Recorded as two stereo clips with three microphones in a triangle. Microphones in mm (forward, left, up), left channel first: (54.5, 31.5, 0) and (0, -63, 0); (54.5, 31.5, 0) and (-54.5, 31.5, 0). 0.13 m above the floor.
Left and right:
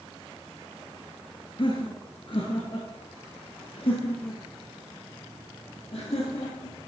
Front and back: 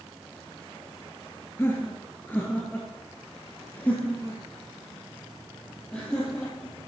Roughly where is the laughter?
Ahead left.